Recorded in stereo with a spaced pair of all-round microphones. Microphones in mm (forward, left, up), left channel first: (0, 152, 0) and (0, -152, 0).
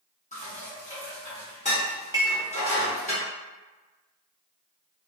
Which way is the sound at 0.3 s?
25° left (ahead or behind).